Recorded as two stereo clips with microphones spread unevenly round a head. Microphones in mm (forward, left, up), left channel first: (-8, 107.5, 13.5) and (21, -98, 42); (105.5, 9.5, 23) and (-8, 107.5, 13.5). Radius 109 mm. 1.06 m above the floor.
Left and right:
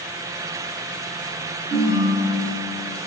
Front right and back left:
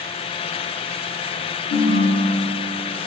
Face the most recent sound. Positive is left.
turn(degrees=-25)